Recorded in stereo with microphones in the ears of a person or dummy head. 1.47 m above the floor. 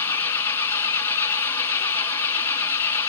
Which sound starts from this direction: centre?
An engine running, at 0.0 s.